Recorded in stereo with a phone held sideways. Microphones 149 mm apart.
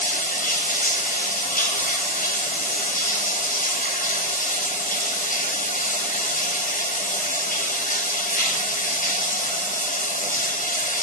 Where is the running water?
70° left (ahead or behind), 1.0 m.